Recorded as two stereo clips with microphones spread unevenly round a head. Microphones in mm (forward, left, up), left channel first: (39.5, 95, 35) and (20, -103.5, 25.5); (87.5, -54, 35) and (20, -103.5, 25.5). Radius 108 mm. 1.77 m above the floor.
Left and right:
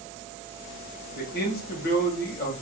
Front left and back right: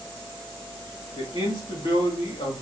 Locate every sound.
1.1 s a man speaking: 50° left, 1.2 m